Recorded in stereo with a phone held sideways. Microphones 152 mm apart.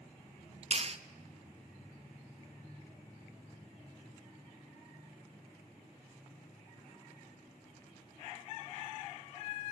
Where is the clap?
45° right (ahead or behind), 0.7 m.